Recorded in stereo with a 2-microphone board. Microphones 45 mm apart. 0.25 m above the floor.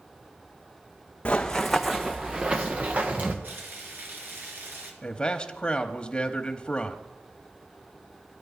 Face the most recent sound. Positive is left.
turn(degrees=20)  # may be behind; listen again after turning